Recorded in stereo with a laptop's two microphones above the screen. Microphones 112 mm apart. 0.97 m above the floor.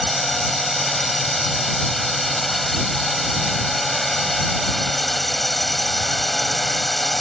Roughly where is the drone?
Centre.